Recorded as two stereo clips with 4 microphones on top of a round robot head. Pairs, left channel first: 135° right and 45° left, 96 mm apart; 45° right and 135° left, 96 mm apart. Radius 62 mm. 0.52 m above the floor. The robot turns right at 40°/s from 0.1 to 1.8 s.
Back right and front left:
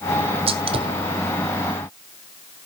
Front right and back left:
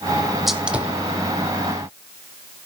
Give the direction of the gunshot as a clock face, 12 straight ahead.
10 o'clock.